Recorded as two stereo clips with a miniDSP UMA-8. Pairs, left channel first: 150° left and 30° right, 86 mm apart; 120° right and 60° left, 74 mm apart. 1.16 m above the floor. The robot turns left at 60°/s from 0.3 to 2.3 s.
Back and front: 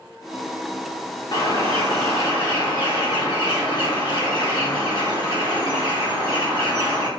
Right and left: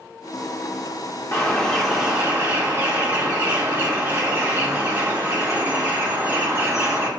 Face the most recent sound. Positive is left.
turn(degrees=120)